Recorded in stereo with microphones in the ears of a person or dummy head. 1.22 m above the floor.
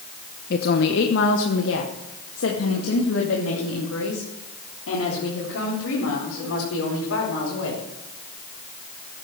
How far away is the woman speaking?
About 0.9 m.